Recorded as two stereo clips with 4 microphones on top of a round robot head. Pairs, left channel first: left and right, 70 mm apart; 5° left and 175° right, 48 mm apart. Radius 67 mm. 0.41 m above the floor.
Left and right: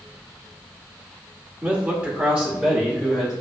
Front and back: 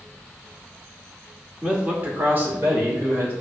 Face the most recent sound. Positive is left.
turn(degrees=-170)